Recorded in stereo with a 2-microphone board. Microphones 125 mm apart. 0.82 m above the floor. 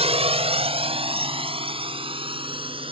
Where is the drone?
50° right (ahead or behind); by 2.9 s 45° right (ahead or behind).